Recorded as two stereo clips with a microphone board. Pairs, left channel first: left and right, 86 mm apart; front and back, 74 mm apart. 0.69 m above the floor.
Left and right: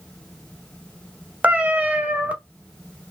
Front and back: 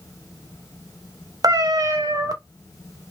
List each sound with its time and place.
1.4 s a cat meowing: 160° right, 0.6 m